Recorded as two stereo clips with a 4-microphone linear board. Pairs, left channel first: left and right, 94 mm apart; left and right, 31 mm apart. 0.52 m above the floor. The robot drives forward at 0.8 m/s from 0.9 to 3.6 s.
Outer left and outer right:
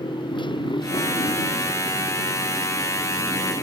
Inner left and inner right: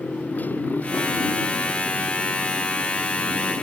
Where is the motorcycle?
60° left (ahead or behind); by 3.6 s 55° left (ahead or behind).